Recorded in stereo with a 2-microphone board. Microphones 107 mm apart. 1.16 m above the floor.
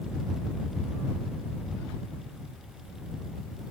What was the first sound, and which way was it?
Only background noise.